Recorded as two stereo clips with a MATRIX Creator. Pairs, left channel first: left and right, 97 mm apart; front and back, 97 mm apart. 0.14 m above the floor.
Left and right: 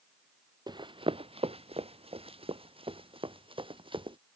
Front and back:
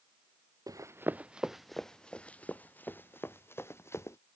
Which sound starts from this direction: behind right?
Running footsteps, at 0.7 s.